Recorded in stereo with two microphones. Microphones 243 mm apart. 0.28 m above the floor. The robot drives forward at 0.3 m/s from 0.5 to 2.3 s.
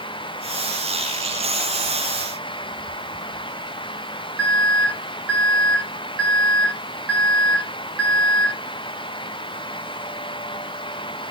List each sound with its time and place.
4.4 s an alarm: 65° right (ahead or behind), 9.5 m